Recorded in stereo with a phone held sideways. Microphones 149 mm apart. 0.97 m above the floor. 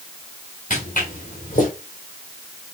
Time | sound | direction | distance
0.7 | footsteps | 60° left (ahead or behind) | 5.5 m